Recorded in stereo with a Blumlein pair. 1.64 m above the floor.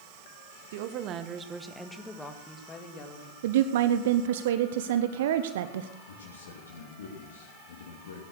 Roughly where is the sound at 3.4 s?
Ahead right.